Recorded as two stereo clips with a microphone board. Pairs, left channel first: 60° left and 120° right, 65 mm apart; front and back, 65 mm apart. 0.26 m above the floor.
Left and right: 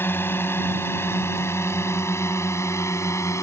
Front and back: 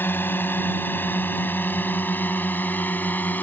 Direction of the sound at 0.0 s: 35° left.